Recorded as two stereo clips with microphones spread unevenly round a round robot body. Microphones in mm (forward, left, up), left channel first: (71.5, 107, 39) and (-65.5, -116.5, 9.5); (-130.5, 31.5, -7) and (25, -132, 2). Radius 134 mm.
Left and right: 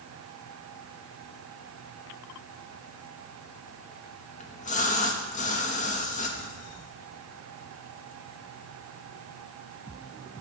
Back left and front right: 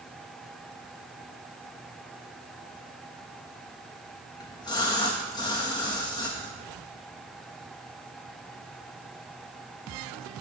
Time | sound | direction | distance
4.4 | a splash | 90° left | 1.0 m